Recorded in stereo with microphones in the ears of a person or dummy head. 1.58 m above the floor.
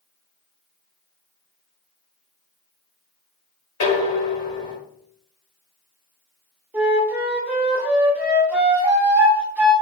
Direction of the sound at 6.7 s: 10° right (ahead or behind).